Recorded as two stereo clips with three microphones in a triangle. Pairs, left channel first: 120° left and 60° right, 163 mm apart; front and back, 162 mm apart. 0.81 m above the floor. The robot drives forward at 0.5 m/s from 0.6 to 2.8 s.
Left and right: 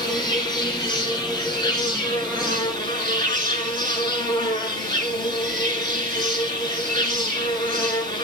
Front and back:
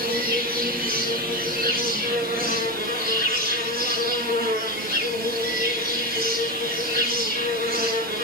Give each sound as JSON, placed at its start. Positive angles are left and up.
{"t": 0.0, "sound": "an insect", "azimuth_deg": -175, "distance_m": 5.5}